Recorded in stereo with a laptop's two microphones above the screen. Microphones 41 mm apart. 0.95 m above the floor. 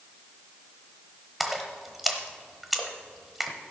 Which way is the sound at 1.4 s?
Centre (ahead or behind).